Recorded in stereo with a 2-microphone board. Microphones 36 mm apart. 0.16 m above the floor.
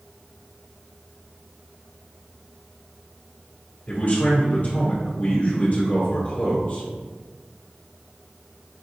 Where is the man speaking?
45° left (ahead or behind), 1.9 m.